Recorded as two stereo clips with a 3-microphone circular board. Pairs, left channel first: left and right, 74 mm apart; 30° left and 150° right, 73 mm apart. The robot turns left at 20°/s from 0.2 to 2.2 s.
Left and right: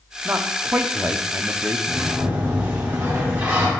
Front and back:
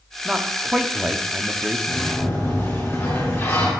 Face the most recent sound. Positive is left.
turn(degrees=-25)